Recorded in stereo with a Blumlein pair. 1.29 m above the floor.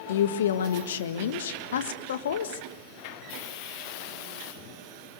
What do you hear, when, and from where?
0.1 s a woman speaking: 60° left, 1.5 m